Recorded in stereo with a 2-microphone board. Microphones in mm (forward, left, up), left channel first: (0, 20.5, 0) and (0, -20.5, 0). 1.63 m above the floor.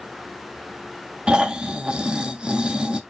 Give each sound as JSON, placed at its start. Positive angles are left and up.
{"t": 1.3, "sound": "snoring", "side_deg": -20, "distance_m": 0.6}